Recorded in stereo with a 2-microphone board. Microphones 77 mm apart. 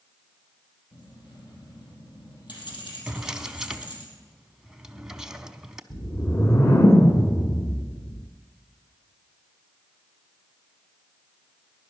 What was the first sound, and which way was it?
Keys jangling, 80° left.